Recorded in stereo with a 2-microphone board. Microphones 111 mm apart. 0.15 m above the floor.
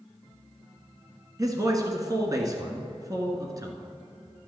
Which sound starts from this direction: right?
A man speaking, at 1.4 s.